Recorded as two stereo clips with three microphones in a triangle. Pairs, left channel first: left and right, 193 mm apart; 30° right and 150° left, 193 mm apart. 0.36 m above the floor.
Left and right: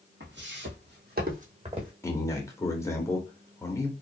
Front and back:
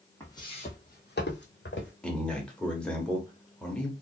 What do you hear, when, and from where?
0.2 s footsteps: 105° right, 1.1 m; by 1.9 s 25° right, 1.3 m
2.0 s a man speaking: 45° left, 0.8 m